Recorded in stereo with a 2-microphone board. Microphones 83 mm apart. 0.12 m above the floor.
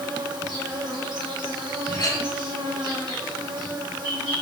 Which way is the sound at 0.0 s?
60° right (ahead or behind).